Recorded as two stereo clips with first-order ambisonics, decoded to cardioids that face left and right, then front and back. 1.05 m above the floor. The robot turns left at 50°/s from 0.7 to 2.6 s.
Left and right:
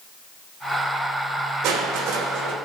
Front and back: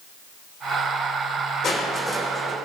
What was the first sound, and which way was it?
Crushing, 55° right.